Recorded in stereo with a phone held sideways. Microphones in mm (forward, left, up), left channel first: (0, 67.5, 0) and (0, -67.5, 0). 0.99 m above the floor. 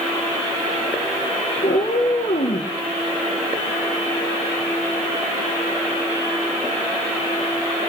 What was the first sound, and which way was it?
A cat meowing, 75° left (ahead or behind).